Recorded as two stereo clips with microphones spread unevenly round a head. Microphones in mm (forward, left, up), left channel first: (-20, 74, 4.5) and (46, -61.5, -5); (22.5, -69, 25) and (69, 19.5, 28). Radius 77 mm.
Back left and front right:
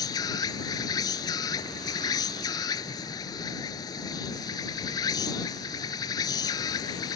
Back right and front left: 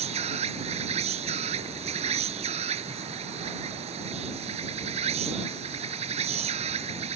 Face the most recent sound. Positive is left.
turn(degrees=50)